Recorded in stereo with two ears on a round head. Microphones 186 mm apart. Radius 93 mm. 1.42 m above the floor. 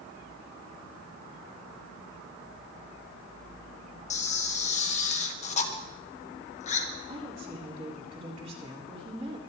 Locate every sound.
4.1 s a camera shutter: 35° left (ahead or behind), 1.3 m
7.1 s a woman speaking: 30° right (ahead or behind), 4 m